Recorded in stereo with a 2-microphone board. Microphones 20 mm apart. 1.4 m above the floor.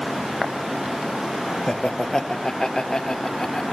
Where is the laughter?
30° left (ahead or behind), 1.1 m; by 3.7 s 40° left (ahead or behind), 3 m.